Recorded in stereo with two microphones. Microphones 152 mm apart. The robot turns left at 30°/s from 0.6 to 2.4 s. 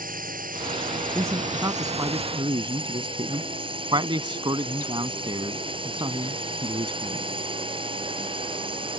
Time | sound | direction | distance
0.0 | a drone | 90° right | ?
1.1 | a man speaking | 20° right (ahead or behind) | ?